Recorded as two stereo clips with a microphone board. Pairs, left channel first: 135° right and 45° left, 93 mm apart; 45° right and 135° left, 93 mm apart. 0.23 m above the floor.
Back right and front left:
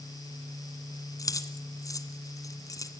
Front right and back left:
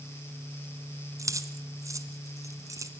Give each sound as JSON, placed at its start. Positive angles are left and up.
{"t": 1.2, "sound": "keys jangling", "azimuth_deg": 180, "distance_m": 1.5}